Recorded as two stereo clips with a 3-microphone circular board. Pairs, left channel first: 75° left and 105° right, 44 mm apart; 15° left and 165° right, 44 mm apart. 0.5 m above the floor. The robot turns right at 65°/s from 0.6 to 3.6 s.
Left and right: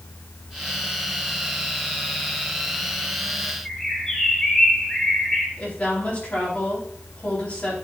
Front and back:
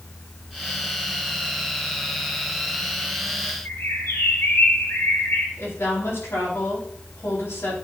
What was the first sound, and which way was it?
A bird, straight ahead.